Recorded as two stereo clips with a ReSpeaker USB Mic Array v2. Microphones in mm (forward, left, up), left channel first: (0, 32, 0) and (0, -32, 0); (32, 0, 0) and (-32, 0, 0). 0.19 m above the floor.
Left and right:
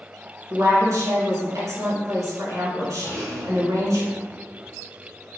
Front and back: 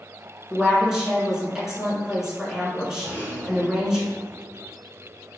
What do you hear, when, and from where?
0.5 s a woman speaking: 100° right, 1.8 m
3.0 s a rattle: 115° right, 1.6 m